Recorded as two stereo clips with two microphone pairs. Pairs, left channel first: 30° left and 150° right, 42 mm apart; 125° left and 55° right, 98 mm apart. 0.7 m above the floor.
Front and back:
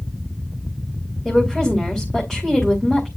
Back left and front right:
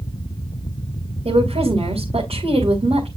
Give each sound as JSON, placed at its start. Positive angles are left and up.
{"t": 1.2, "sound": "a woman speaking", "azimuth_deg": -50, "distance_m": 3.5}